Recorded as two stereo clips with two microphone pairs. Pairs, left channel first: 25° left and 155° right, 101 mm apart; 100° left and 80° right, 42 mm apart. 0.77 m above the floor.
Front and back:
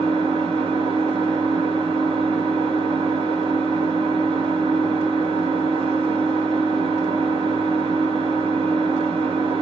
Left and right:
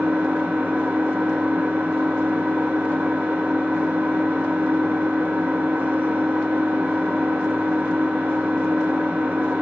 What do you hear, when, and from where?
0.0 s an engine running: 125° right, 1.2 m